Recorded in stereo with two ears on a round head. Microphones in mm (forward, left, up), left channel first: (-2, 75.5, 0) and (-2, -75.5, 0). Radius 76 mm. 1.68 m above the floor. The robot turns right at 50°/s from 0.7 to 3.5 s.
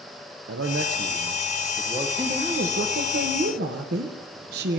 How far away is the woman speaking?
About 1.2 m.